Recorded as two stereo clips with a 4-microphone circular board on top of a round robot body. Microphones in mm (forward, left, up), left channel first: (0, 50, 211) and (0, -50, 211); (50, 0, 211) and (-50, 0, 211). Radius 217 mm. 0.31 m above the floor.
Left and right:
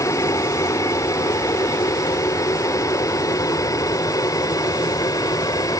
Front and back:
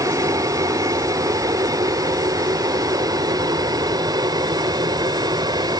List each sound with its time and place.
0.0 s an aircraft: 135° left; by 5.8 s 140° left